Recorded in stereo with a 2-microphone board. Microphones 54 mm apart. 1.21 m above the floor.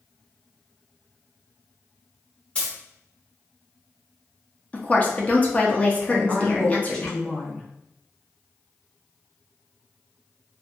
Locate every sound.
2.5 s a dropped coin: 20° left (ahead or behind), 0.9 m
4.7 s a woman speaking: 25° left (ahead or behind), 0.7 m
6.1 s a woman speaking: 15° left (ahead or behind), 1.0 m